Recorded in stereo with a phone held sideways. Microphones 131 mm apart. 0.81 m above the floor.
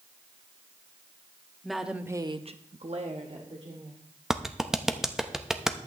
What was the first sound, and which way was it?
A woman speaking, centre (ahead or behind).